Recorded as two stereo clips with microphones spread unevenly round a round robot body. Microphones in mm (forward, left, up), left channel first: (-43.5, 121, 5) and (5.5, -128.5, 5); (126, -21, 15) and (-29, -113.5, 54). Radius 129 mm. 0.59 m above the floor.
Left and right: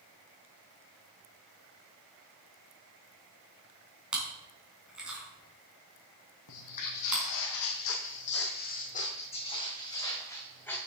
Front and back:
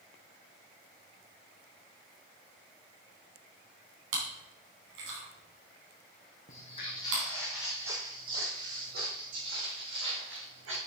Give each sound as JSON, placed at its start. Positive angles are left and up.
{"t": 4.1, "sound": "chewing", "azimuth_deg": -165, "distance_m": 3.5}
{"t": 6.5, "sound": "footsteps", "azimuth_deg": 100, "distance_m": 1.8}